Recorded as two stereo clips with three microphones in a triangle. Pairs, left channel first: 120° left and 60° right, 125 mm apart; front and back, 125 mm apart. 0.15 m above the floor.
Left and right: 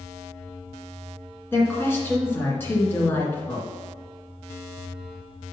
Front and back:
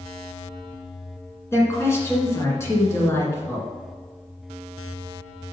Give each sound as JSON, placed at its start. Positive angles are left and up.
{"t": 1.5, "sound": "a woman speaking", "azimuth_deg": 55, "distance_m": 2.0}